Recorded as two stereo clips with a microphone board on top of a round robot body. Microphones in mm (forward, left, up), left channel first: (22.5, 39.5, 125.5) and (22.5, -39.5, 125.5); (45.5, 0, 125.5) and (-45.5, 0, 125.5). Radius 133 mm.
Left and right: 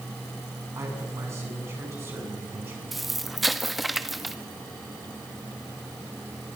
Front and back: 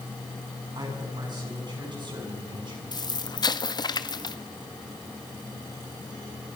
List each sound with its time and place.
0.8 s a man speaking: 140° right, 7.5 m; by 2.8 s 150° right, 7.5 m
2.9 s an explosion: straight ahead, 1.5 m